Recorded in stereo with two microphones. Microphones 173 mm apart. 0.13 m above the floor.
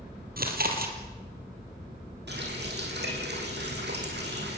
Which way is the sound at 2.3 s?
75° right (ahead or behind).